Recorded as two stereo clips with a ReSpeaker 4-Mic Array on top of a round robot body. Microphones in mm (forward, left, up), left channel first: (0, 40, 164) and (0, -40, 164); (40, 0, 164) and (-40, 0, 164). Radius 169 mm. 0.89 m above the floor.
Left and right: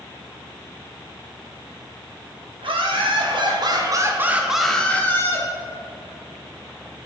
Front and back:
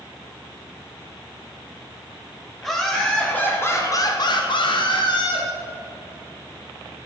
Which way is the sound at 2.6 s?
85° right.